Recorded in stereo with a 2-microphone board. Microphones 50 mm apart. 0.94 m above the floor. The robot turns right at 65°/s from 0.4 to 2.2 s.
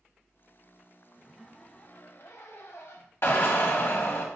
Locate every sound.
1.1 s a zipper: 10° right, 0.7 m; by 3.1 s 60° left, 0.7 m
3.2 s a drill: 55° left (ahead or behind), 1.5 m